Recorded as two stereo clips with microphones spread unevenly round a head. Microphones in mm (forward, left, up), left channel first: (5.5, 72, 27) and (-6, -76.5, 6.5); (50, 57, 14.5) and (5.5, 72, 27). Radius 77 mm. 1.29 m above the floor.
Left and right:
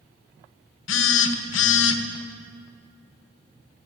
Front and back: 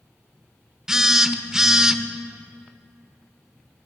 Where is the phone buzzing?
80° left, 0.8 m.